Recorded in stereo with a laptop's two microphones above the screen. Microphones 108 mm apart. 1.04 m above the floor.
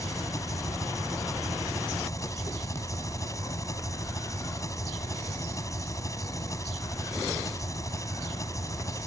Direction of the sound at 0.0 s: 30° left (ahead or behind).